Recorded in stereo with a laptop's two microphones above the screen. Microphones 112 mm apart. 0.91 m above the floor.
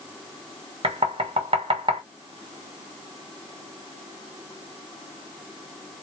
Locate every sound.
0.8 s knocking: 55° right (ahead or behind), 1.1 m